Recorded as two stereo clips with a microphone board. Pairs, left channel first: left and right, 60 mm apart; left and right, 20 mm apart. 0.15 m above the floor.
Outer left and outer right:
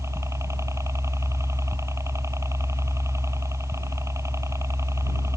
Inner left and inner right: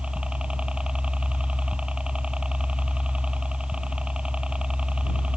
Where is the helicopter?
50° right (ahead or behind).